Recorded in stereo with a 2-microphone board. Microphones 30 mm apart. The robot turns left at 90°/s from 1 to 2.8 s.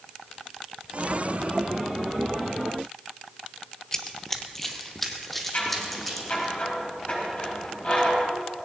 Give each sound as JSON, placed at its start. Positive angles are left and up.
{"t": 3.9, "sound": "running footsteps", "side_deg": 15, "distance_m": 1.0}
{"t": 5.5, "sound": "scissors", "side_deg": 50, "distance_m": 5.0}